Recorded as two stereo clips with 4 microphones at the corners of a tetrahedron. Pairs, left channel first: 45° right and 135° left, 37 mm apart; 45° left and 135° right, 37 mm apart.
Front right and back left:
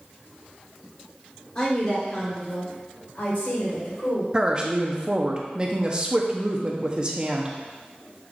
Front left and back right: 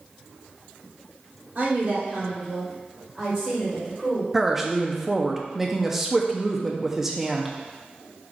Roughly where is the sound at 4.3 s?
Behind left.